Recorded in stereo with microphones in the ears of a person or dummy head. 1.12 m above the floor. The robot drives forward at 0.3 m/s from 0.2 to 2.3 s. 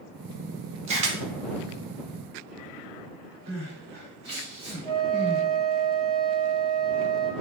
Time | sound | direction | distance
0.9 | a camera shutter | 30° right (ahead or behind) | 0.7 m
3.5 | crying | 55° right (ahead or behind) | 1.6 m
4.8 | a flute | 20° left (ahead or behind) | 0.7 m